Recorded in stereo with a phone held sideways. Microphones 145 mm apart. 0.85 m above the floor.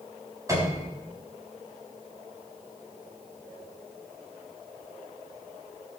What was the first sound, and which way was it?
A piano, 20° right (ahead or behind).